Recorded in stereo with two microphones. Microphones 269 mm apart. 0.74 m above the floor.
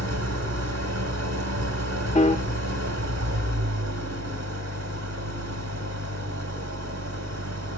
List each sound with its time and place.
0.0 s an engine running: 75° right (ahead or behind), 2.5 m
2.1 s a piano: 25° left (ahead or behind), 0.5 m